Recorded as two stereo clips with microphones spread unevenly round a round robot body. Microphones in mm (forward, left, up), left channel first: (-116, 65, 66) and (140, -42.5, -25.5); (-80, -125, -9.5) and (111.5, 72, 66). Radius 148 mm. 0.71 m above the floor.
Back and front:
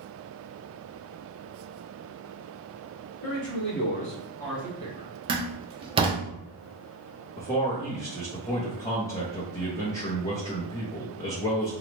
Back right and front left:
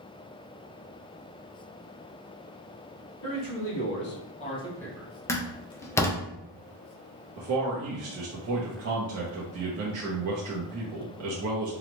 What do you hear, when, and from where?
3.2 s a man speaking: 150° right, 1.7 m; by 5.1 s 50° right, 1.2 m
5.3 s a door slam: 70° right, 0.7 m
7.4 s a man speaking: 55° left, 0.8 m